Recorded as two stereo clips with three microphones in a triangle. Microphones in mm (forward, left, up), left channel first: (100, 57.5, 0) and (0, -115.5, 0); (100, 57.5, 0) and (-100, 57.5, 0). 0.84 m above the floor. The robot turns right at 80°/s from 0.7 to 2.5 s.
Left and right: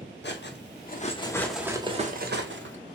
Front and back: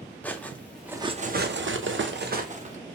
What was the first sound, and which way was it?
Cutlery clinking, 85° left.